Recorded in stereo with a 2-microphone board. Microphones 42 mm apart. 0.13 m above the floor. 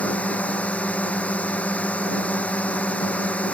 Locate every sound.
0.0 s a drone: 30° left (ahead or behind)